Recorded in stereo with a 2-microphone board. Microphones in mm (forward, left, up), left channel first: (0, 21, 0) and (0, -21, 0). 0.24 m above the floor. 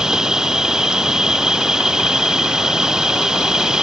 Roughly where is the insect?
Centre.